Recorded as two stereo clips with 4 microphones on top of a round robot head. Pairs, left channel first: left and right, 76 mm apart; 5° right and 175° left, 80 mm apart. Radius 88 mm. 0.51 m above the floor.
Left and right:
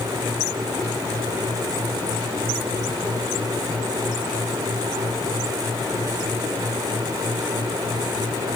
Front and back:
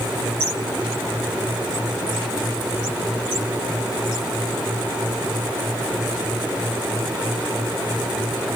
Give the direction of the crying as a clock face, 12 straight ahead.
I don't hear crying.